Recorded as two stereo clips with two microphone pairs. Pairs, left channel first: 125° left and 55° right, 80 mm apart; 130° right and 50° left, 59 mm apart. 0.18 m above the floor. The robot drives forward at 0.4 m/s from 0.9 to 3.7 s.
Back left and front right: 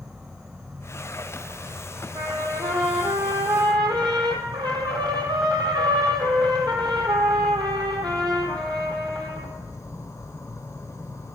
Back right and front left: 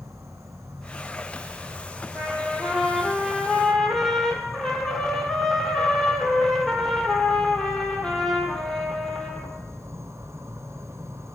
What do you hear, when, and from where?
0.0 s an insect: 25° left, 1.4 m; by 11.4 s 80° left, 0.6 m
2.1 s a trumpet: 35° right, 1.6 m; by 9.5 s 55° right, 1.2 m